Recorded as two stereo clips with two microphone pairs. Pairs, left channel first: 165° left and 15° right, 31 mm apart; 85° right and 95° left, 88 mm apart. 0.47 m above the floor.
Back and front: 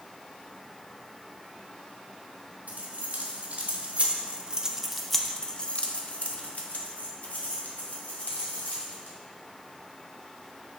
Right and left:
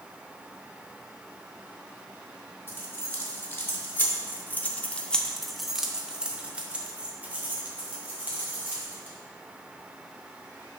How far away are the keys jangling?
About 1.3 m.